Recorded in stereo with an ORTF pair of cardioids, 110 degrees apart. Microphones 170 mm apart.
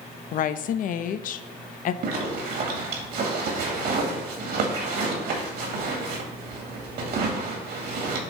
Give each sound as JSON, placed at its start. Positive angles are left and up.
{"t": 0.3, "sound": "a woman speaking", "azimuth_deg": 50, "distance_m": 0.6}
{"t": 2.0, "sound": "a zipper", "azimuth_deg": -70, "distance_m": 2.0}